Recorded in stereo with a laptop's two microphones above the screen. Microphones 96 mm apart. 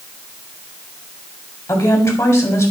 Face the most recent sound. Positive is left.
turn(degrees=35)  # may be behind; listen again after turning